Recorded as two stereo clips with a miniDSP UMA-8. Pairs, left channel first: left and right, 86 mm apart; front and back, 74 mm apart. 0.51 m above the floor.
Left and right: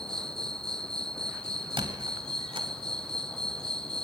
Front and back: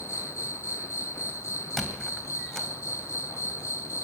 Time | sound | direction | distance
0.0 | an insect | 10° left | 0.9 m
1.8 | a squeak | 85° right | 2 m